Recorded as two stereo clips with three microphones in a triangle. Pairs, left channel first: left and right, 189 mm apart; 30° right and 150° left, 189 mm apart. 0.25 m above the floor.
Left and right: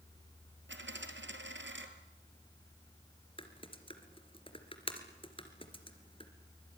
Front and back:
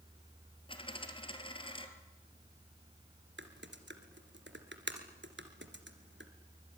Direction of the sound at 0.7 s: 95° right.